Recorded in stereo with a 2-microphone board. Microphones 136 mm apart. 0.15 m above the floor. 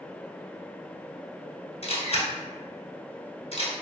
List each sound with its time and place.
1.8 s a camera shutter: 55° left (ahead or behind), 0.9 m